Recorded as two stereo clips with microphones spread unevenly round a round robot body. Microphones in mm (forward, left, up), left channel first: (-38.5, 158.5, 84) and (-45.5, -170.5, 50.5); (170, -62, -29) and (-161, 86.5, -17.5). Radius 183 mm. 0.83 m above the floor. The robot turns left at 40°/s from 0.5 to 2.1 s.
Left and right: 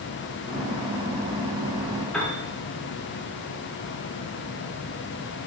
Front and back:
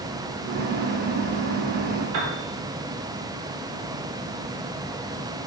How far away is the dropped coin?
I don't hear a dropped coin.